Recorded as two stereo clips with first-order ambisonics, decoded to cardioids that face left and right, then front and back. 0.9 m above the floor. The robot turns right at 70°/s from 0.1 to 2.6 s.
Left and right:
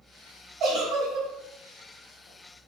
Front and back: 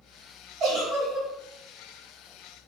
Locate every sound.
0.6 s a giggle: 140° right, 1.2 m; by 1.3 s 90° right, 1.2 m